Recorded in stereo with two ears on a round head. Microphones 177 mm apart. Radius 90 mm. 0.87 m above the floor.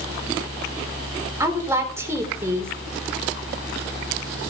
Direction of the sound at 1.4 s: 15° right (ahead or behind).